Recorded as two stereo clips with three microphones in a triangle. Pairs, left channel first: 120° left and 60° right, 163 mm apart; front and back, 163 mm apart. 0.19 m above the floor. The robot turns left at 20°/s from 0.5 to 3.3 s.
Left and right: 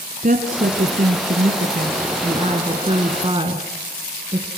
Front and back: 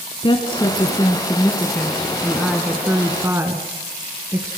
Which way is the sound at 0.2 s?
55° right.